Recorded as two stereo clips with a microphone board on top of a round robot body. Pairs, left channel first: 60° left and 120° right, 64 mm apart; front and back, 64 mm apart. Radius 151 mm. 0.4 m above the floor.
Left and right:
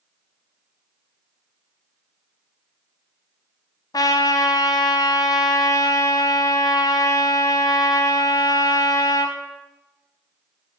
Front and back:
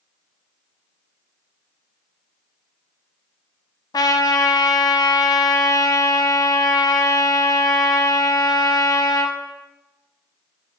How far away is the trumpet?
About 0.5 m.